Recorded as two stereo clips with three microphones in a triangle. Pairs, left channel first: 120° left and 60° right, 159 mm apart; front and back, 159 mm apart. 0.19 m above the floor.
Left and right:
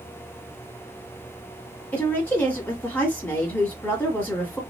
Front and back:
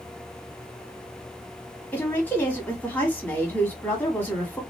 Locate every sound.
1.9 s a woman speaking: 60° left, 1.4 m